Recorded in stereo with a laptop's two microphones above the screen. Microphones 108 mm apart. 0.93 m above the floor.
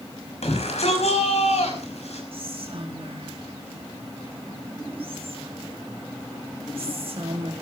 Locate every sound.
0.4 s a shout: 80° left, 5.5 m
2.3 s whispering: 60° right (ahead or behind), 1.9 m